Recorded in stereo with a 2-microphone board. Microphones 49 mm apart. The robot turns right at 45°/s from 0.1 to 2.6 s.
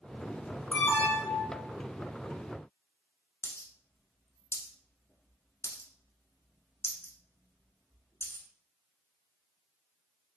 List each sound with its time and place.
0.7 s an alarm: 40° left, 1.2 m; by 1.6 s 85° left, 1.2 m
3.4 s a dropped coin: 65° left (ahead or behind), 0.8 m